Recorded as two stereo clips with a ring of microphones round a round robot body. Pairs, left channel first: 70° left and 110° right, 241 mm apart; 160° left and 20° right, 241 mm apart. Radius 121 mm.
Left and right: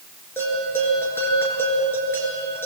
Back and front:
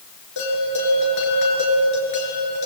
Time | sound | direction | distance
0.4 | a bell | 150° left | 7.5 m